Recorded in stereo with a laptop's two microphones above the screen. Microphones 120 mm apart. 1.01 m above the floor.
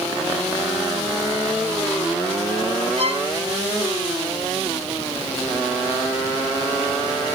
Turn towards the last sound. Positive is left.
turn(degrees=-55)  # may be behind; listen again after turning